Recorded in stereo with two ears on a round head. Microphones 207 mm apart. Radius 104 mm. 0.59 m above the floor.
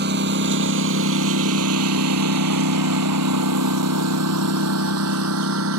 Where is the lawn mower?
45° right (ahead or behind); by 5.8 s 65° right (ahead or behind).